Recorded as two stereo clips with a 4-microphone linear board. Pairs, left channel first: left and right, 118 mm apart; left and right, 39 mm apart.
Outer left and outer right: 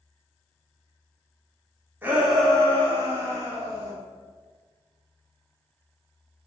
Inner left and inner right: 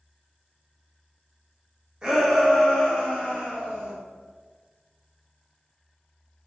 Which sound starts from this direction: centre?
A shout, at 2.0 s.